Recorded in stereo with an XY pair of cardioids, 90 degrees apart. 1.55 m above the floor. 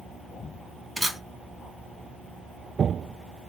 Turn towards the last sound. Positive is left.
turn(degrees=-10)